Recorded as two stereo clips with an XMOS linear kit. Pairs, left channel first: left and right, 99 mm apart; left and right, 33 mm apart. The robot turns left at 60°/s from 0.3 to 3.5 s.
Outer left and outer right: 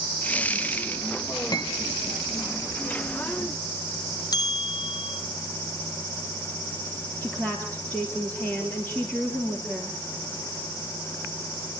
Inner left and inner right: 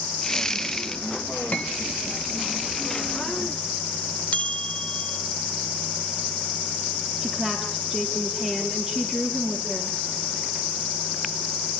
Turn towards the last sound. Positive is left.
turn(degrees=15)  # may be behind; listen again after turning